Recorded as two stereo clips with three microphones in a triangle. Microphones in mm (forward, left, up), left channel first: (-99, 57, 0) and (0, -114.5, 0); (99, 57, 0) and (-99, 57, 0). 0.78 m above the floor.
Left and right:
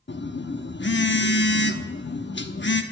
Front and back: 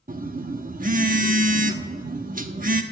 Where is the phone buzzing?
135° left, 1.1 m.